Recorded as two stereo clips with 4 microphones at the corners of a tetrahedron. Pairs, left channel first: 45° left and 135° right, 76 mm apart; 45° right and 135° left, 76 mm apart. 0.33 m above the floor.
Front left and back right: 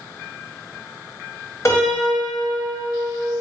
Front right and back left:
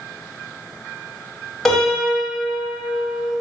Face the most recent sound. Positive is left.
turn(degrees=40)